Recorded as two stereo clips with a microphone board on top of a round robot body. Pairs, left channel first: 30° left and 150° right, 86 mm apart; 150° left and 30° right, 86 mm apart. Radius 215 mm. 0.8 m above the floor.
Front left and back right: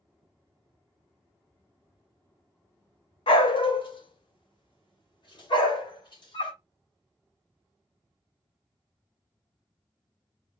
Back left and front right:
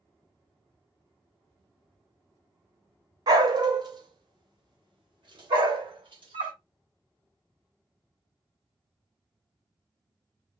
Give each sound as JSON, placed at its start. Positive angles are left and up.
{"t": 3.3, "sound": "a dog barking", "azimuth_deg": 15, "distance_m": 0.8}